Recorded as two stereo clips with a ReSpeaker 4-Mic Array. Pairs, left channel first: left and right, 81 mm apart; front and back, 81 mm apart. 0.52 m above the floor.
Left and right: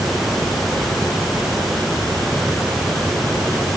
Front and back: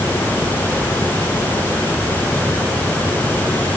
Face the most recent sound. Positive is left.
No sound to turn to.